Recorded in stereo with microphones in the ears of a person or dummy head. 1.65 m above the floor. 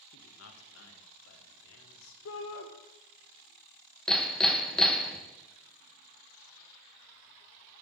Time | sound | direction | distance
0.1 | a man speaking | 75° left (ahead or behind) | 1.4 m
2.2 | a shout | 80° left | 1.2 m
4.1 | hammering | 5° left (ahead or behind) | 1.1 m